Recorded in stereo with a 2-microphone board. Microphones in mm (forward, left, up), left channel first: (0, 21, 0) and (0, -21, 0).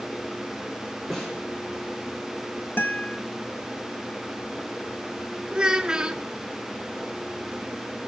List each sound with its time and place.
1.1 s a snare drum: 10° left (ahead or behind), 6.5 m
2.8 s a guitar: 50° left (ahead or behind), 1.2 m
5.5 s a child speaking: 20° right (ahead or behind), 0.8 m